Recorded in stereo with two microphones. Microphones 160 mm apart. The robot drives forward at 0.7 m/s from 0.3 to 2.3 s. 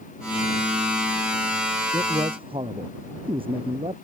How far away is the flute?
No flute in this recording.